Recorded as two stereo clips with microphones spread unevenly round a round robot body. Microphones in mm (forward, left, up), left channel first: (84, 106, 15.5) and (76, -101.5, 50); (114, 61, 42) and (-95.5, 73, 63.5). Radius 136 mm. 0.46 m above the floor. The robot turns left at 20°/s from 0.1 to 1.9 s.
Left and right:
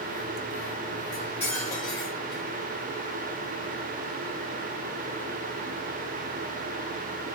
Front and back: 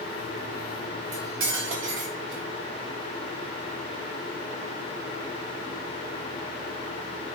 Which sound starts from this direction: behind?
Cutlery clinking, at 1.1 s.